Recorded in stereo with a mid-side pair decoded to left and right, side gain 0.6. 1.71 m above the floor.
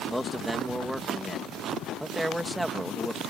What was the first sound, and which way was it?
A man speaking, 5° right.